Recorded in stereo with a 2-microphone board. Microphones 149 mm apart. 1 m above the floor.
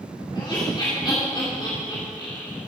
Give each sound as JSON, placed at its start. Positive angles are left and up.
{"t": 0.3, "sound": "laughter", "side_deg": 30, "distance_m": 2.5}